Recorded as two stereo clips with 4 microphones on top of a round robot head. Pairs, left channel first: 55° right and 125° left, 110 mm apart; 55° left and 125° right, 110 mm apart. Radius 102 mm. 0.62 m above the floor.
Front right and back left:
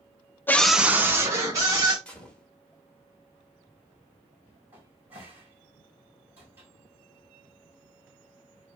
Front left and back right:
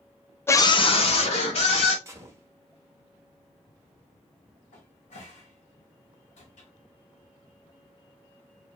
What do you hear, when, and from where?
0.5 s a scream: 5° left, 0.6 m; by 1.9 s 70° left, 1.9 m
2.0 s a gunshot: 120° right, 1.2 m
4.7 s a cupboard door: 55° left, 1.7 m